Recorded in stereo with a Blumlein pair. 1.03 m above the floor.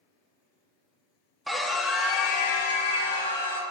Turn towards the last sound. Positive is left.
turn(degrees=55)